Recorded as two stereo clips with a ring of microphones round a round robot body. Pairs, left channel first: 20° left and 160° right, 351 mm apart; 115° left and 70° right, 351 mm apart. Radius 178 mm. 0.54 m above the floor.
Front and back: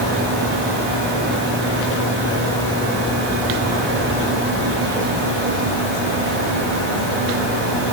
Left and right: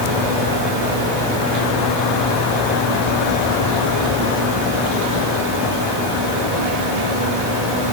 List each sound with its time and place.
Only background noise.